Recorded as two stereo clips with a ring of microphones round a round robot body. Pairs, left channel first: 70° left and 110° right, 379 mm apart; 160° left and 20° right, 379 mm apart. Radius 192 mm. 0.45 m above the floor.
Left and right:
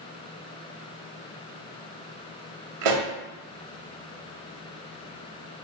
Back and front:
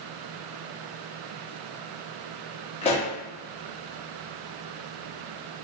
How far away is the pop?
About 0.7 m.